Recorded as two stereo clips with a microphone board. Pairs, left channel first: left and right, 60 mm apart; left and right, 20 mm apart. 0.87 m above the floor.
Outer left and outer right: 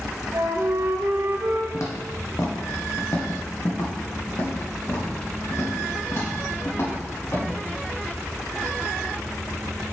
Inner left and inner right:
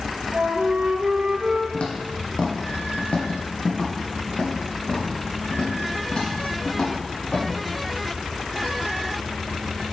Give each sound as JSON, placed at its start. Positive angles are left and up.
{"t": 0.3, "sound": "a flute", "side_deg": -55, "distance_m": 0.8}
{"t": 1.7, "sound": "footsteps", "side_deg": 60, "distance_m": 1.7}